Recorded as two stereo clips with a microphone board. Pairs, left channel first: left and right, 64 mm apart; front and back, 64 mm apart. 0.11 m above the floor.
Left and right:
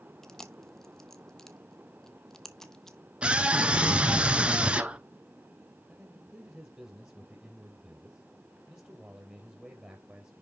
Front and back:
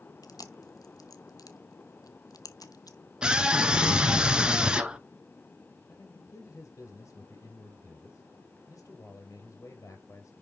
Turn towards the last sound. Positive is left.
turn(degrees=-20)